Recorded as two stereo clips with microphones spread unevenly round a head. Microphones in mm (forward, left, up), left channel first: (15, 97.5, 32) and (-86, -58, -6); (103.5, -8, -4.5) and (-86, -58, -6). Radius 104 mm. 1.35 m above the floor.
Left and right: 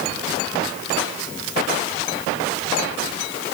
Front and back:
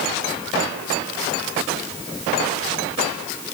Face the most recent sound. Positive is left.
No sound to turn to.